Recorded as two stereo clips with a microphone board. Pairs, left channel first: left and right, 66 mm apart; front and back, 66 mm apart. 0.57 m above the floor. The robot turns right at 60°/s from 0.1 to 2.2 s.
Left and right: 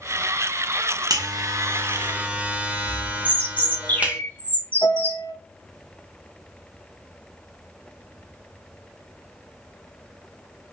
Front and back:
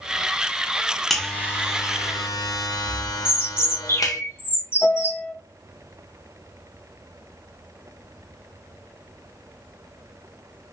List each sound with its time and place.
1.1 s a buzzer: 85° right, 0.6 m; by 4.2 s 20° right, 0.6 m
3.2 s a bird: 35° left, 0.7 m
4.8 s a piano: 85° left, 0.8 m